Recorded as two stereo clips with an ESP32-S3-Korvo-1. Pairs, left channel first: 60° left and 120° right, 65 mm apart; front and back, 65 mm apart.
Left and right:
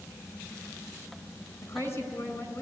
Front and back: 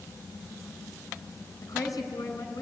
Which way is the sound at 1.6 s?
20° left.